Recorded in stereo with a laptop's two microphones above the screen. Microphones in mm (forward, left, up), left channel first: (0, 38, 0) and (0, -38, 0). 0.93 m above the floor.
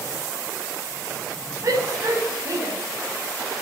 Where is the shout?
45° right (ahead or behind), 5.5 m; by 2.7 s 55° right (ahead or behind), 7 m.